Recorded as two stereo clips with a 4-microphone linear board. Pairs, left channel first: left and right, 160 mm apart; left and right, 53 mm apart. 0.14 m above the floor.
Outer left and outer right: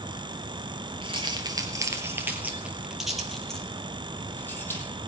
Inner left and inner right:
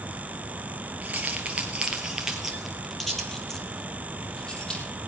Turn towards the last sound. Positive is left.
turn(degrees=15)  # may be behind; listen again after turning